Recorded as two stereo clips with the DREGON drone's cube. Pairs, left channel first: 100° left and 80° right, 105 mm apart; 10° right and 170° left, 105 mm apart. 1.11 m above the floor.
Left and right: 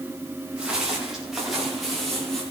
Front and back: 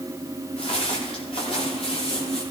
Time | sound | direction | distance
0.6 | footsteps | straight ahead | 7 m